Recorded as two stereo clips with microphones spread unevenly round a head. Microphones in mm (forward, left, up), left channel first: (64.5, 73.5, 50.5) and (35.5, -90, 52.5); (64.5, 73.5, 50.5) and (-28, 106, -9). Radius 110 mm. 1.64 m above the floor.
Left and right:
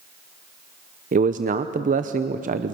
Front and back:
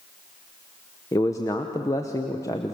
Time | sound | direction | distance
1.1 | a man speaking | 65° right | 0.8 m